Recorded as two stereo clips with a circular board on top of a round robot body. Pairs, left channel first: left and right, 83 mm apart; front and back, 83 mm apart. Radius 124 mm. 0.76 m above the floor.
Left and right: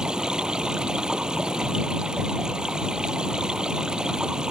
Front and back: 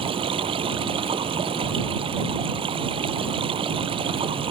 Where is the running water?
170° right.